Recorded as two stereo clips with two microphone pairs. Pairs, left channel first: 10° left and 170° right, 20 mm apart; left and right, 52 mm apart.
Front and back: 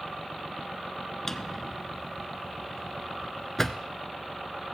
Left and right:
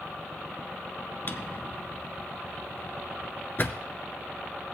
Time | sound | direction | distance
1.3 | a drawer | 75° left | 0.6 m